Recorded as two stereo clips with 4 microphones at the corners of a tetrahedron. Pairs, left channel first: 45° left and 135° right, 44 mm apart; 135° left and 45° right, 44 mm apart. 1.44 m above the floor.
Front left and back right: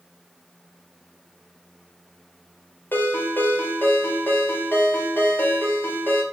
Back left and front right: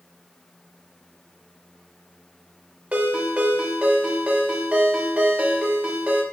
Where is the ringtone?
10° left, 1.1 m.